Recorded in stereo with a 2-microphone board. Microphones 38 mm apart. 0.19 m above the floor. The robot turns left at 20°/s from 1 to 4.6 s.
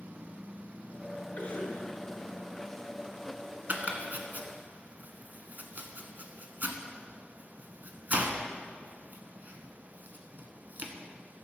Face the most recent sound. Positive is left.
turn(degrees=-50)  # may be behind; listen again after turning